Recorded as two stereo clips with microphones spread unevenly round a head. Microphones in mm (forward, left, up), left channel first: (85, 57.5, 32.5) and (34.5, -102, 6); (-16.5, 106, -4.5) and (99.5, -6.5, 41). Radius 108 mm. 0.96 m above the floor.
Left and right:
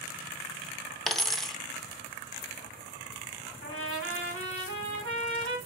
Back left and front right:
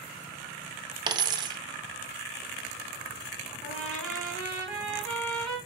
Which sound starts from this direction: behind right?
A trumpet, at 3.6 s.